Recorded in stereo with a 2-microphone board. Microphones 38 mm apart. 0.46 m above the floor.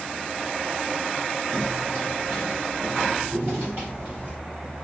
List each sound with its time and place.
1.5 s footsteps: 70° right (ahead or behind), 3 m; by 4.3 s 60° right (ahead or behind), 7 m